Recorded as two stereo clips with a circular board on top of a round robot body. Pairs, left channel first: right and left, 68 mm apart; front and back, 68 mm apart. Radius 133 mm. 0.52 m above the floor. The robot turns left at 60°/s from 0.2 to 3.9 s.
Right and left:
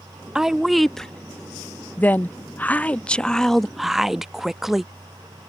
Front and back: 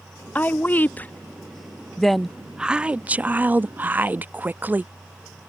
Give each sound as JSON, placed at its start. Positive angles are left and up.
{"t": 0.3, "sound": "a woman speaking", "azimuth_deg": 20}